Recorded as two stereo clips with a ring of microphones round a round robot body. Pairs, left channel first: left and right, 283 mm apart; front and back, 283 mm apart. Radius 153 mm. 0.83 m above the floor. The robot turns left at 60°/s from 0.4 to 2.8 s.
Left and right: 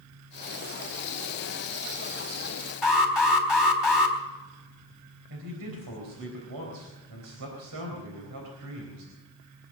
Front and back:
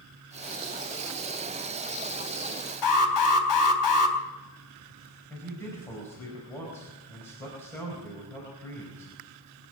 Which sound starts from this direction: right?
A man speaking, at 5.3 s.